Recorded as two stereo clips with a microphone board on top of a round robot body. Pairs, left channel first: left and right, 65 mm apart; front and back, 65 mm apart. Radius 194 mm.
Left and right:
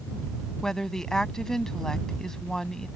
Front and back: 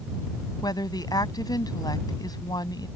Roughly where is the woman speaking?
Ahead.